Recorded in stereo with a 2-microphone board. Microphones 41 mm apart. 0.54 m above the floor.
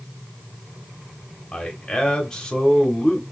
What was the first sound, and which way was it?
A man speaking, 20° left (ahead or behind).